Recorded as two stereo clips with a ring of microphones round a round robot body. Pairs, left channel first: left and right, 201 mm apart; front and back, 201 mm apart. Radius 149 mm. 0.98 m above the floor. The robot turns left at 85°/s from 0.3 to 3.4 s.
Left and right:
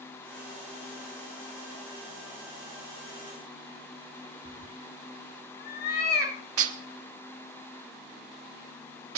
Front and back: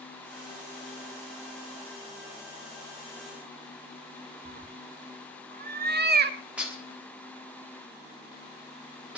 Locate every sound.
4.5 s a cat meowing: 150° left, 1.2 m
6.6 s dishes clattering: 95° right, 1.3 m